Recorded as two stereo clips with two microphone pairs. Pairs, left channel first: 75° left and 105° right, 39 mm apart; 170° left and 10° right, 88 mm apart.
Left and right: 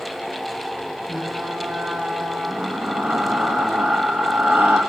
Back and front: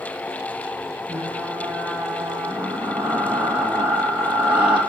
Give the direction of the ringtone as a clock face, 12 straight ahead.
No ringtone in this recording.